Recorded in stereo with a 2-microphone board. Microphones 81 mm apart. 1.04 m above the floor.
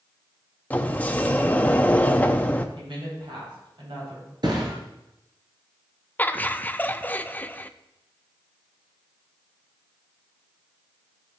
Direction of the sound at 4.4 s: 60° right (ahead or behind).